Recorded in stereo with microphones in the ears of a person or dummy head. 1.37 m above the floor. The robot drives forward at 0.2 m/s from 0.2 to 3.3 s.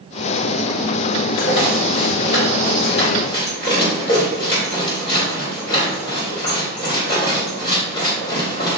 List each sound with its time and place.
1.3 s a rattle: 30° left (ahead or behind), 2.5 m